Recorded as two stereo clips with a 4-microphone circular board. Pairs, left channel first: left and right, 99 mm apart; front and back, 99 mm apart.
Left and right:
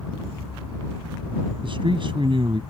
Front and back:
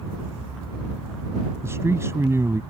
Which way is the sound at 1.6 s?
120° right.